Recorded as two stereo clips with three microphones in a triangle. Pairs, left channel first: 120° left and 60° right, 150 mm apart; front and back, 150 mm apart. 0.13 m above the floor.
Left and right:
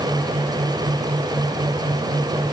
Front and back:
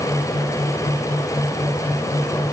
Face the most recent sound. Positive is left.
No sound to turn to.